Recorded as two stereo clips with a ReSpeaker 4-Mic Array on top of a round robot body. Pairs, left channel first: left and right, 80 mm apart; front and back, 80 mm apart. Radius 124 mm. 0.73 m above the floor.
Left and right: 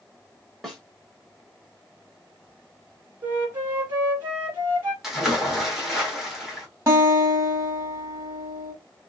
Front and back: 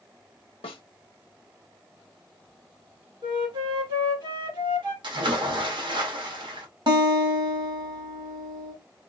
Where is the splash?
175° right, 1.7 m.